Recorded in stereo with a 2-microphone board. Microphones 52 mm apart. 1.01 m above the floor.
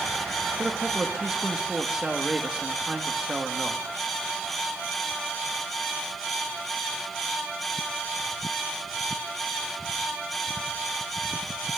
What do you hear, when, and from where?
0.6 s a man speaking: 15° right (ahead or behind), 1.7 m